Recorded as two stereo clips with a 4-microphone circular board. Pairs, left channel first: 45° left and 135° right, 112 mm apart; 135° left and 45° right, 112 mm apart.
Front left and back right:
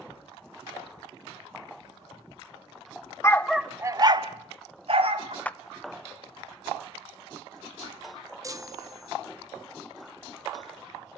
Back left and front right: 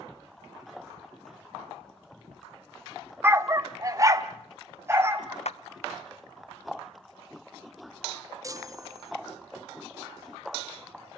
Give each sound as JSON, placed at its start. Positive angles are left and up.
{"t": 3.2, "sound": "a dog barking", "azimuth_deg": 10, "distance_m": 0.9}
{"t": 5.5, "sound": "a clap", "azimuth_deg": 120, "distance_m": 0.6}
{"t": 8.4, "sound": "a chime", "azimuth_deg": -90, "distance_m": 0.7}